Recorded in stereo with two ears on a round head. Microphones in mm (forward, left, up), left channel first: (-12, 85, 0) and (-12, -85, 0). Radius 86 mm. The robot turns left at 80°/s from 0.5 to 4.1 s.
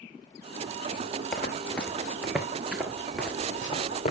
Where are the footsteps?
5° left (ahead or behind), 1.4 m; by 4.1 s 40° left (ahead or behind), 1.7 m.